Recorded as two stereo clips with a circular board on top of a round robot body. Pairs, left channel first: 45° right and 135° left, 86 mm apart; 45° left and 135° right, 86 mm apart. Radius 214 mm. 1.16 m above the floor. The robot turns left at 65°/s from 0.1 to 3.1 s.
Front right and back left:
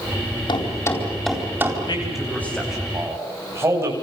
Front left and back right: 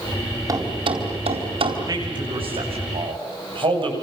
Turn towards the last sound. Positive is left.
turn(degrees=-165)